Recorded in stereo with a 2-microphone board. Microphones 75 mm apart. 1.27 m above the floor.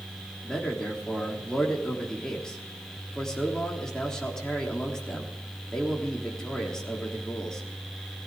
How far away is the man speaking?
About 3.5 m.